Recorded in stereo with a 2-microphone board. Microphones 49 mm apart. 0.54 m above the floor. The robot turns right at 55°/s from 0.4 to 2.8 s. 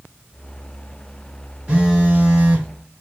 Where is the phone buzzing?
25° right (ahead or behind), 1.3 m.